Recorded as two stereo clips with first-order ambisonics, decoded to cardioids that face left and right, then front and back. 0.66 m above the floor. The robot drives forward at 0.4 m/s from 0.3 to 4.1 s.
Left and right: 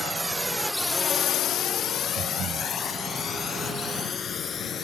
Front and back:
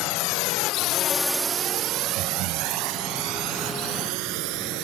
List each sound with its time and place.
0.0 s a drone: 10° right; by 4.8 s 155° left
2.2 s breathing: 145° right